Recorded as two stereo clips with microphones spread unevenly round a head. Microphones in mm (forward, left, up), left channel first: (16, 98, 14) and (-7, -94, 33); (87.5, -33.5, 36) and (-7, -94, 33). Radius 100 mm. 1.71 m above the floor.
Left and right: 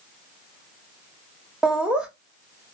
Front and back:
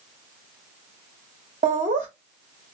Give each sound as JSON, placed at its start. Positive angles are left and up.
{"t": 1.6, "sound": "laughter", "azimuth_deg": 180, "distance_m": 0.7}